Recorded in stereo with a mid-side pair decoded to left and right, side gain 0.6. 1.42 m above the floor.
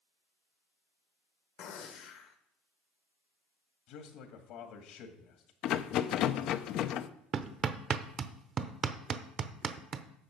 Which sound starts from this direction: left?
A man speaking, at 3.9 s.